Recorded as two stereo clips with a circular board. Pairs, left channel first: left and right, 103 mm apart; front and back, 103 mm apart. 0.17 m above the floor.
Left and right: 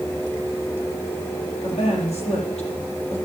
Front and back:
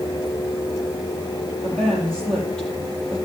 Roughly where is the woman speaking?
Left.